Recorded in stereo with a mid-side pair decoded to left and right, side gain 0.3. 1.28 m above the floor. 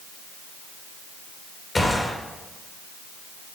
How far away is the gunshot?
About 3 m.